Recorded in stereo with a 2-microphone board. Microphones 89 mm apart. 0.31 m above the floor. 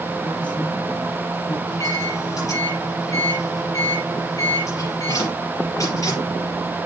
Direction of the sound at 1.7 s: 40° left (ahead or behind).